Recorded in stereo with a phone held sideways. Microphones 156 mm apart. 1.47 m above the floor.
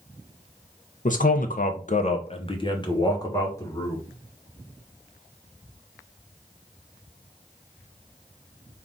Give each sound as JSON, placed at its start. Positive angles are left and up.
{"t": 1.1, "sound": "a man speaking", "side_deg": 55, "distance_m": 0.6}